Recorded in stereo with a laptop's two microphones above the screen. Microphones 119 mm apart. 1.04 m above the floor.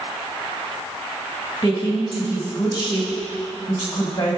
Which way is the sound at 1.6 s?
25° left (ahead or behind).